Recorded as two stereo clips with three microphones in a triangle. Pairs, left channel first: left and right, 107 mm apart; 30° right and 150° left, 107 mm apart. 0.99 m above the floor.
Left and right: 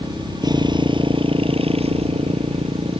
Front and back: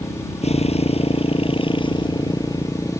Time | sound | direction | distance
0.0 | a motorcycle | 35° right | ?